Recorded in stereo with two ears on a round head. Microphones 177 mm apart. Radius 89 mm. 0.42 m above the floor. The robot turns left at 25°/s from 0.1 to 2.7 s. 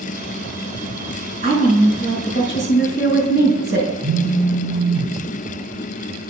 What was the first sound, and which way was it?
A woman speaking, 45° right.